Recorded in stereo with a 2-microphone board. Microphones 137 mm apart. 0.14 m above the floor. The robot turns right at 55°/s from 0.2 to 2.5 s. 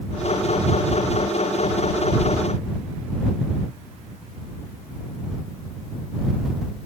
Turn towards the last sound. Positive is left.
No sound to turn to.